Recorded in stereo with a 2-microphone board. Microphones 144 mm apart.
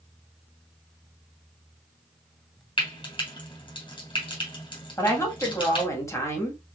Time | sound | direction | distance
2.8 | frying | 35° left (ahead or behind) | 2.5 m
5.0 | a woman speaking | 20° left (ahead or behind) | 1.6 m